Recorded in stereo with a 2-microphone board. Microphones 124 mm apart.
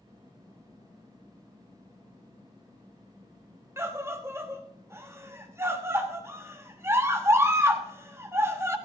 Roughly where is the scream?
Right.